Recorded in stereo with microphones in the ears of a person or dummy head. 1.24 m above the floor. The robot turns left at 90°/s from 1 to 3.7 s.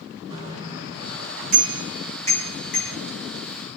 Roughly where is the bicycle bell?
Right.